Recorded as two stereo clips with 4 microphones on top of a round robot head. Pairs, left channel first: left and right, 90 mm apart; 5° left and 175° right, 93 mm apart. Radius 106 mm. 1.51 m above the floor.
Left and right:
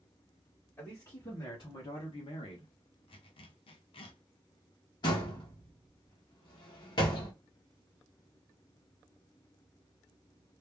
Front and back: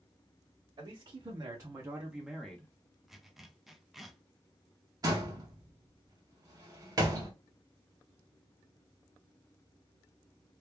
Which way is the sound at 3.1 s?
95° left.